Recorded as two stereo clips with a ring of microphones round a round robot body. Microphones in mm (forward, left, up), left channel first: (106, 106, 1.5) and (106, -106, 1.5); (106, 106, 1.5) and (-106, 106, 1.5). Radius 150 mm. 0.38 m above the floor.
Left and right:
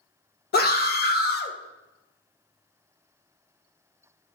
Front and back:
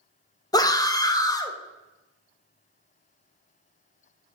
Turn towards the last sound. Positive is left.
turn(degrees=70)